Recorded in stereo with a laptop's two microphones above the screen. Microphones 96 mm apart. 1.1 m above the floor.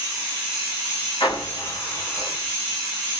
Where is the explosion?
60° left (ahead or behind), 1.8 m.